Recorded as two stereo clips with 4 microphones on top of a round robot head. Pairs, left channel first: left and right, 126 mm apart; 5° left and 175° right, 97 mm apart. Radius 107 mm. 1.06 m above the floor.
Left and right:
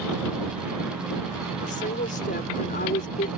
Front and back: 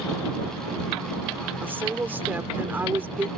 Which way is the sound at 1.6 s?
115° left.